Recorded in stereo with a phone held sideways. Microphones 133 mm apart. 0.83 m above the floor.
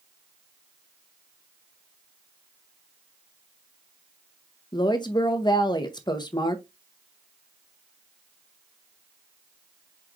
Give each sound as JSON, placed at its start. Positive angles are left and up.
{"t": 4.7, "sound": "a woman speaking", "side_deg": 35, "distance_m": 0.7}